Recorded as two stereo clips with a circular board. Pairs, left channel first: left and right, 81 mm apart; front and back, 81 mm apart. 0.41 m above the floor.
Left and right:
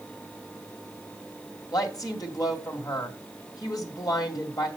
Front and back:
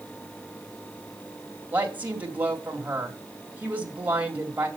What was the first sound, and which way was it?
A woman speaking, 115° left.